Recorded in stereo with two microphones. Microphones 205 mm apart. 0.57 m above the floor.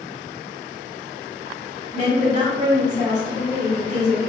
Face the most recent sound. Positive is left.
turn(degrees=-35)  # may be behind; listen again after turning